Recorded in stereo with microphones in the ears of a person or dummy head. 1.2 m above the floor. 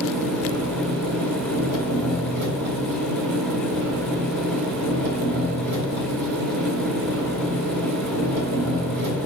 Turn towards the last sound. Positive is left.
turn(degrees=-80)